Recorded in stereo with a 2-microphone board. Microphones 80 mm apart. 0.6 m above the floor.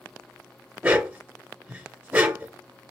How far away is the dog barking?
About 0.7 m.